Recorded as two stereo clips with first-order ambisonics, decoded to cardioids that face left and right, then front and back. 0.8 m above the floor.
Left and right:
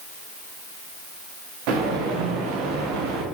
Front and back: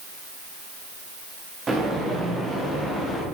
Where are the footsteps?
105° right, 5.5 m; by 3.2 s 85° right, 6 m.